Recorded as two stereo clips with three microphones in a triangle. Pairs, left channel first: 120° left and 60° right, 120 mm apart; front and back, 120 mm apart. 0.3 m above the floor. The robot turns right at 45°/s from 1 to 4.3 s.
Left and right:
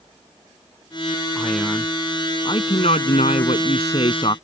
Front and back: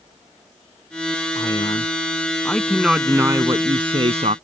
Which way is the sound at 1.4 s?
30° left.